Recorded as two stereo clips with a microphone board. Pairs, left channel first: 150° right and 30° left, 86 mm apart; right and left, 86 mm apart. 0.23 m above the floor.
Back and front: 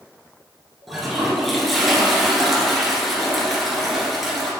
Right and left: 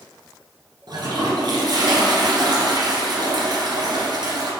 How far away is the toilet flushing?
About 1.8 m.